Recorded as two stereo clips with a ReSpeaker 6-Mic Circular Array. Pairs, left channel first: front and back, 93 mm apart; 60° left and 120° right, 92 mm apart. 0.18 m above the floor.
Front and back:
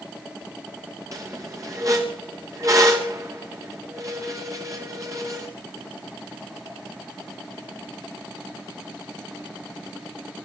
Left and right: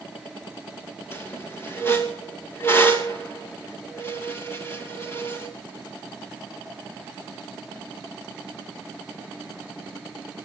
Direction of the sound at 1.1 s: 125° left.